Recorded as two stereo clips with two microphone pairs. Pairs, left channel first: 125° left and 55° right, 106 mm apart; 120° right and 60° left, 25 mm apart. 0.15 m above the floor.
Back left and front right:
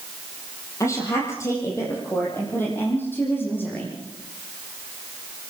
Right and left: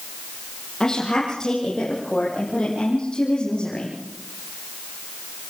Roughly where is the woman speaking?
Behind.